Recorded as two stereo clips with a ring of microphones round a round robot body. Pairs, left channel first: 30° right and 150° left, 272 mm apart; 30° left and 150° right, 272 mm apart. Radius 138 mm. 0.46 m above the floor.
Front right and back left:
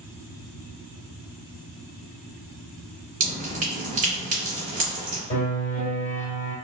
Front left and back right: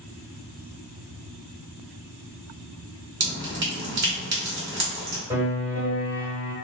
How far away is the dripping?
About 1.6 m.